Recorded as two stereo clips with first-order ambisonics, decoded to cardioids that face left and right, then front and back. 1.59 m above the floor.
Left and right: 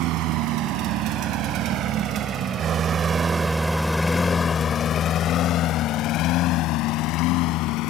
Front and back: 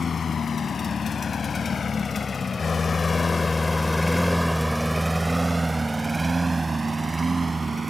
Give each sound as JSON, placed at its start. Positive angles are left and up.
{"t": 0.0, "sound": "a lawn mower", "azimuth_deg": -70}